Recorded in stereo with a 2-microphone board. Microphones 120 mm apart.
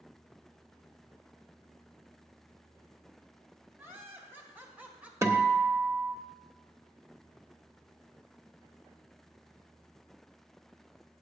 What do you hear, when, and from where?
3.8 s laughter: 20° right (ahead or behind), 2.5 m; by 5.1 s 10° right (ahead or behind), 1.5 m
5.2 s a guitar: 25° right (ahead or behind), 0.9 m